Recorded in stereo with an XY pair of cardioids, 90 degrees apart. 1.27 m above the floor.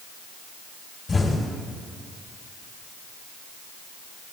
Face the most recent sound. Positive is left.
turn(degrees=35)